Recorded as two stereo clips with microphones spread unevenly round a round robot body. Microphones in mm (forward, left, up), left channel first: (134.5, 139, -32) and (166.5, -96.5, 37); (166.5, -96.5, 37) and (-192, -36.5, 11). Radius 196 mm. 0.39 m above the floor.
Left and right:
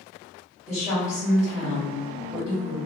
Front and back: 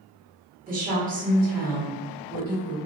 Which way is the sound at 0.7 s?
160° left.